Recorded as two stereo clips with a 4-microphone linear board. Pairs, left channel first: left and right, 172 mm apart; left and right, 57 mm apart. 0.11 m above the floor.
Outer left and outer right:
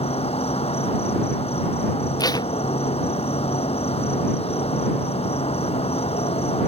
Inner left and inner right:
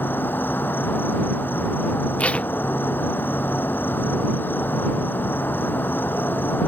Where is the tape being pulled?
25° left (ahead or behind).